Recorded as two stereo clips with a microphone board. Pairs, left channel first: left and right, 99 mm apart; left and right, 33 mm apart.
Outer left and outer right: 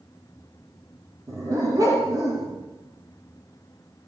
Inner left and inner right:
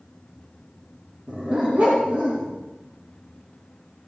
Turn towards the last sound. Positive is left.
turn(degrees=-40)  # may be behind; listen again after turning